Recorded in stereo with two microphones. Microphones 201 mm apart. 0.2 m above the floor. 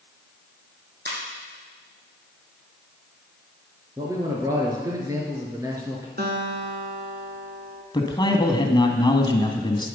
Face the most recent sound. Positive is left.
turn(degrees=25)  # may be behind; listen again after turning